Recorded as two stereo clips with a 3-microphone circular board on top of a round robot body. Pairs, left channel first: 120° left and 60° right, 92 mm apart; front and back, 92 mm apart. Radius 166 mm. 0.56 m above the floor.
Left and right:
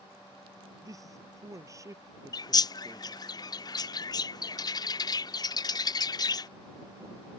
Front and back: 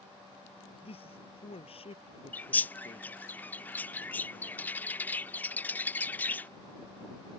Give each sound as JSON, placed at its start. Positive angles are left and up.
{"t": 0.8, "sound": "a man speaking", "azimuth_deg": -5}
{"t": 2.3, "sound": "a bird", "azimuth_deg": 75}